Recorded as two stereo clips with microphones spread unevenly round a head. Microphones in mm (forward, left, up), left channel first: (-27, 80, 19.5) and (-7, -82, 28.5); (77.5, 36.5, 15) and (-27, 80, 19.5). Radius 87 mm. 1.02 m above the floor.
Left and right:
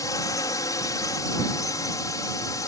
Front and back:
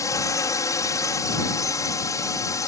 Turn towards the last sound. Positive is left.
turn(degrees=30)